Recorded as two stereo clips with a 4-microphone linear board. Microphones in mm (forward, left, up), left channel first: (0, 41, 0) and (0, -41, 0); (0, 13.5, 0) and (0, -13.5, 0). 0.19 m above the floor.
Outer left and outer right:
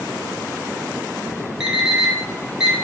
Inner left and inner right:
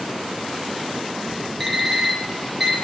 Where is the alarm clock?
5° right (ahead or behind), 1.2 m.